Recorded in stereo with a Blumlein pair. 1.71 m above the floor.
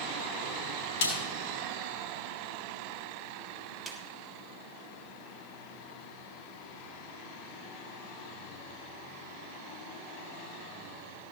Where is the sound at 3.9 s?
5° right, 1.5 m.